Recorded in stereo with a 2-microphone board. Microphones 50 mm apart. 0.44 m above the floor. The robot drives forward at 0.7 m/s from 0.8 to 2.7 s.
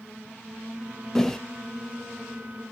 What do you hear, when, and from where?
1.1 s a whoosh: 10° left (ahead or behind), 1.0 m